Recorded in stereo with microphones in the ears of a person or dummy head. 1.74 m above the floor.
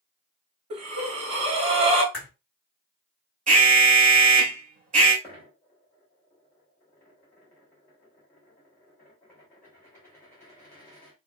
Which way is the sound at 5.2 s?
15° left (ahead or behind).